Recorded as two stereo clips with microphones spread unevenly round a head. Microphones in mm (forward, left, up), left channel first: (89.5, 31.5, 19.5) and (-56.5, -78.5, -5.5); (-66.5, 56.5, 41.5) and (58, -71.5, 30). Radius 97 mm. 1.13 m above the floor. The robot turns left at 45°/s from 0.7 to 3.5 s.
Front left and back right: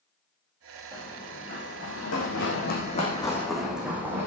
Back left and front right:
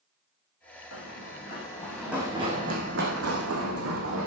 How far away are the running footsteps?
About 5 m.